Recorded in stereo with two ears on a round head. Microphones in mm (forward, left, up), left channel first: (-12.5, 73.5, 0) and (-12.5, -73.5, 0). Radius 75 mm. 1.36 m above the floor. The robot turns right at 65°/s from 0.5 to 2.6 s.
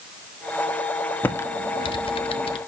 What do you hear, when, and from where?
1.2 s typing on a keyboard: 10° left (ahead or behind), 0.8 m; by 2.6 s 35° left (ahead or behind), 0.8 m